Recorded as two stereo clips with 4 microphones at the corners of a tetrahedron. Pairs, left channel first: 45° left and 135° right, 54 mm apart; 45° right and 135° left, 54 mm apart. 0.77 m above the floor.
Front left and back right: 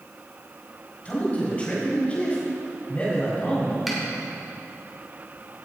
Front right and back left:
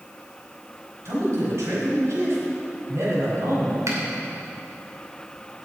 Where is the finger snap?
140° left, 2.5 m.